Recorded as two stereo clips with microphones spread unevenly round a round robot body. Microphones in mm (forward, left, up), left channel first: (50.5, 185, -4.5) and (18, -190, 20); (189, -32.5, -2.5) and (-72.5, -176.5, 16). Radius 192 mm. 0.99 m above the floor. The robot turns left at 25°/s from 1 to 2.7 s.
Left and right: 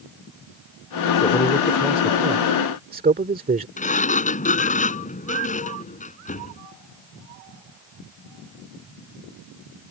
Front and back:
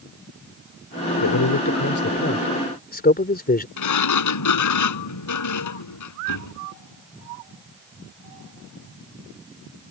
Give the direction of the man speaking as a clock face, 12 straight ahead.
12 o'clock.